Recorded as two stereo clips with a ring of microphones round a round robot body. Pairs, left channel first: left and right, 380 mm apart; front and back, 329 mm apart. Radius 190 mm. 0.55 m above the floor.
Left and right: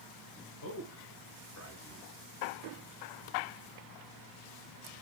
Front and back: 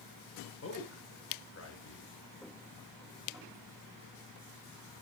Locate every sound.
0.6 s a man speaking: 45° left, 1.9 m